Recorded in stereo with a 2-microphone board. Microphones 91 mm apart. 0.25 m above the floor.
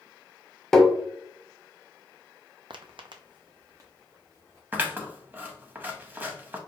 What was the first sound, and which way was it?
Tapping, 5° left (ahead or behind).